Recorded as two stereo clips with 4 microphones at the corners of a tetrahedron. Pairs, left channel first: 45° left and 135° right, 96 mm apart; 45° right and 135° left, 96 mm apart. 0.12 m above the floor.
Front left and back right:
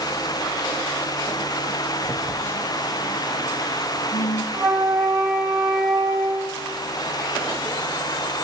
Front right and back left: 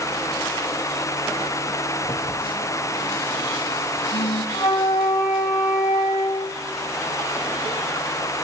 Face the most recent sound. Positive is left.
turn(degrees=-65)